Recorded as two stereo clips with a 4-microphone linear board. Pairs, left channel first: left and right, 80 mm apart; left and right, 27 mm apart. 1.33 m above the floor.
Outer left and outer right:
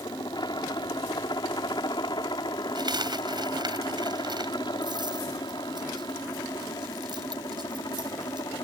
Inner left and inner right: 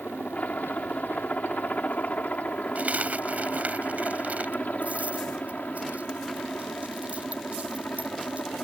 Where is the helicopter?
65° left (ahead or behind).